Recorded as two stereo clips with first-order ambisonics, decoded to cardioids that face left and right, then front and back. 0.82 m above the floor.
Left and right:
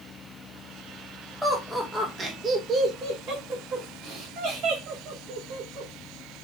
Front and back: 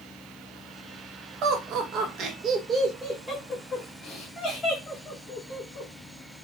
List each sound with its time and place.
1.4 s laughter: straight behind, 1.1 m; by 5.9 s 60° right, 2.0 m